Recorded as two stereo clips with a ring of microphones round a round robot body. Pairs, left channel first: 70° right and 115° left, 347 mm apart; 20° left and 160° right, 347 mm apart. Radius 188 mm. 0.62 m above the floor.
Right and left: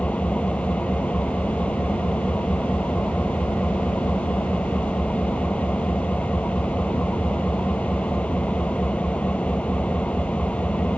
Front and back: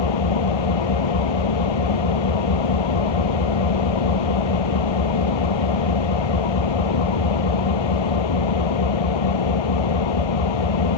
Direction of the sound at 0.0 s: 20° left.